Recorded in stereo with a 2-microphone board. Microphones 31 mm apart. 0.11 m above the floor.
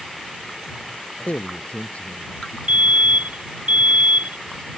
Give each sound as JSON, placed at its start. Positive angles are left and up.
{"t": 1.2, "sound": "a man speaking", "side_deg": 55}
{"t": 2.7, "sound": "a fire alarm", "side_deg": -60}